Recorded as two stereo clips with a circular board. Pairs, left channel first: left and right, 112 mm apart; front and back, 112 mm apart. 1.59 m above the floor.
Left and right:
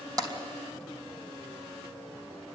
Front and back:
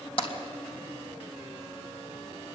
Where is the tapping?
40° right, 3 m.